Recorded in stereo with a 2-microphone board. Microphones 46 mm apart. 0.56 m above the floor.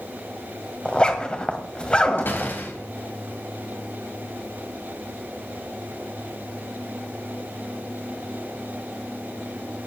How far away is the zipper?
About 1.8 m.